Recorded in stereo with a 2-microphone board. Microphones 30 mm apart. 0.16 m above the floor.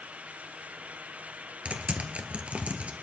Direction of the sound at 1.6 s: 45° right (ahead or behind).